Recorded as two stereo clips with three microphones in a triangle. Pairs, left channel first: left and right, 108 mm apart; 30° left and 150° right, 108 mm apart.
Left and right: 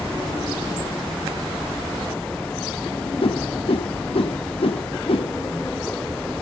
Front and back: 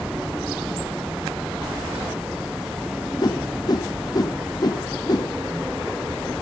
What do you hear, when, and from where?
3.2 s a whoosh: 75° left, 0.6 m